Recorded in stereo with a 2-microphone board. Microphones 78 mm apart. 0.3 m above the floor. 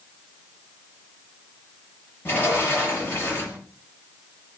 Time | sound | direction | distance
2.2 | a sliding door | 25° left (ahead or behind) | 5.5 m